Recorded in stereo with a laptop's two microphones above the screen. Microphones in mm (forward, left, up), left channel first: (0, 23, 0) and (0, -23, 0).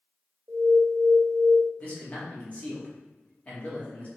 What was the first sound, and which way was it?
An alarm, 70° right (ahead or behind).